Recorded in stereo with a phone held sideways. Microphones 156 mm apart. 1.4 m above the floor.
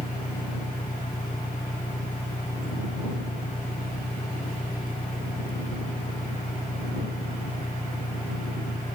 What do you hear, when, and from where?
0.0 s an engine running: 60° left (ahead or behind)